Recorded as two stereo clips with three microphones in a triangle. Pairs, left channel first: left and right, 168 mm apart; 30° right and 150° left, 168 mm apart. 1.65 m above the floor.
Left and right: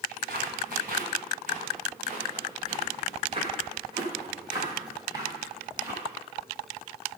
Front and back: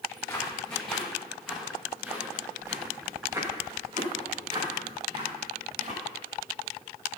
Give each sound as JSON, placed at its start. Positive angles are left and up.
{"t": 0.1, "sound": "footsteps", "azimuth_deg": -110, "distance_m": 8.5}